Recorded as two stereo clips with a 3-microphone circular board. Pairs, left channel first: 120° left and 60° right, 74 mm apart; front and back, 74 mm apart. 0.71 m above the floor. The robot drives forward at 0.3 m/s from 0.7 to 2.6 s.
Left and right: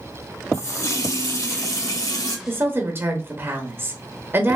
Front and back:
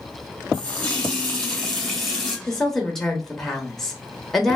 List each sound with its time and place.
0.5 s a running tap: 80° left, 1.9 m; by 2.4 s 95° left, 1.9 m
2.5 s a woman speaking: 80° right, 1.1 m; by 4.6 s 85° right, 1.1 m